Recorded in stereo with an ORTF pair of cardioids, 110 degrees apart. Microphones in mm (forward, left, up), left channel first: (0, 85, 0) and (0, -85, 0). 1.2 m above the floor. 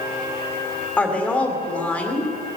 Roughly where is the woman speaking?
Ahead.